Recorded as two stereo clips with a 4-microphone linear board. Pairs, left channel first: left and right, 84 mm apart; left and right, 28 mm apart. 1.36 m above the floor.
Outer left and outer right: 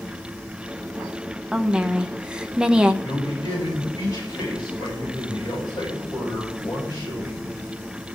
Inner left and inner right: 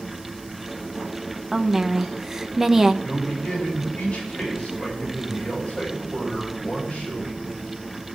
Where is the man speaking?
40° left (ahead or behind), 8.5 m.